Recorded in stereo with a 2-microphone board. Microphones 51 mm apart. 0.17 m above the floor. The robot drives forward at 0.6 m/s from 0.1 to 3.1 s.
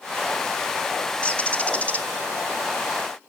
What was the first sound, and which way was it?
A bird, 25° left (ahead or behind).